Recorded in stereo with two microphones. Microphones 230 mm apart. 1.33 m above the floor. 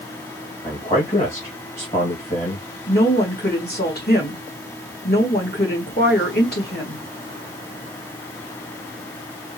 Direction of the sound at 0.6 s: 30° left (ahead or behind).